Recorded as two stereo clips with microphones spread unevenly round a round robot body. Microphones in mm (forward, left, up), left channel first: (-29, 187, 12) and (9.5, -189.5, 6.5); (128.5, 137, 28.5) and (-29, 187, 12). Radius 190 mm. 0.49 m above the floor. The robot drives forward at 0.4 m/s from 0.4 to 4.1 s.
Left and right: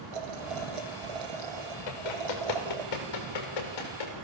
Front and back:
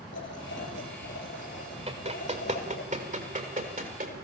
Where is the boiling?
70° right, 5 m; by 2.9 s 80° right, 4.5 m.